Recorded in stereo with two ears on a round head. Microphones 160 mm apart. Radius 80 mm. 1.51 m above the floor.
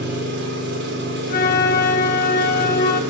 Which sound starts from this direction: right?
An engine running, at 0.0 s.